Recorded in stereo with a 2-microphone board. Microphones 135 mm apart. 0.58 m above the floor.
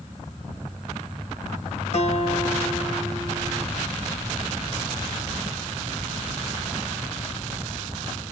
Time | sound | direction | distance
1.9 | a guitar | 50° left (ahead or behind) | 2.5 m